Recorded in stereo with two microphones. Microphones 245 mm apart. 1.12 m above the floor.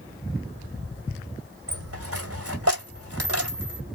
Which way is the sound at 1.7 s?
70° right (ahead or behind).